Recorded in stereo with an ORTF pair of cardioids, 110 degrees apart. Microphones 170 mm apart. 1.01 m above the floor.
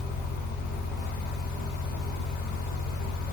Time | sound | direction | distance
0.0 | a fan | 70° left | 0.9 m